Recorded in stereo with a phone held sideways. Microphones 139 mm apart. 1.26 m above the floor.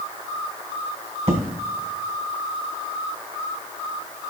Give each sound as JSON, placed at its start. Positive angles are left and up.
{"t": 1.3, "sound": "an explosion", "side_deg": -50, "distance_m": 1.5}